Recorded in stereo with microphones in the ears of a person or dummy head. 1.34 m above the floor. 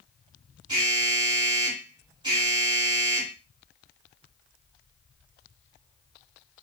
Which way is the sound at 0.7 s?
25° right (ahead or behind).